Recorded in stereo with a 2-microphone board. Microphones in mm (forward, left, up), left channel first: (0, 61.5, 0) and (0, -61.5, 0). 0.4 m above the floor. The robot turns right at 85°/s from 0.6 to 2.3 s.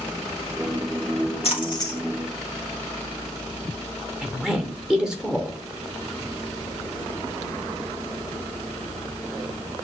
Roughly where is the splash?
Left.